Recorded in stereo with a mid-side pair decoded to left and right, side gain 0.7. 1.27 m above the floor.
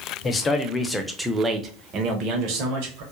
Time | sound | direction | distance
0.2 | a man speaking | 30° left | 0.9 m